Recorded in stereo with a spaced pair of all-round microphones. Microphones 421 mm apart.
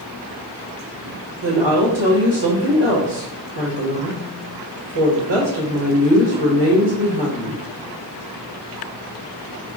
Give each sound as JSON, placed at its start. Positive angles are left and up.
{"t": 1.4, "sound": "a woman speaking", "side_deg": -80, "distance_m": 1.4}